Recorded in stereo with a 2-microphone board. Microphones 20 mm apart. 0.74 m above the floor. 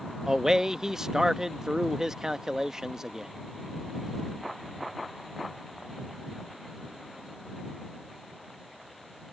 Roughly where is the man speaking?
Right.